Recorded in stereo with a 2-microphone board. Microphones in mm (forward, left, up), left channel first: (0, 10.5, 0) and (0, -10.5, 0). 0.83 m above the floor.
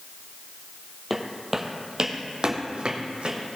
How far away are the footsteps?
About 1.1 m.